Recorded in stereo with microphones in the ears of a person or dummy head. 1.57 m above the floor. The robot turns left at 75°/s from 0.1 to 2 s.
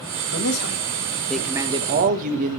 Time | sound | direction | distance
0.3 | a man speaking | 80° left | 1.7 m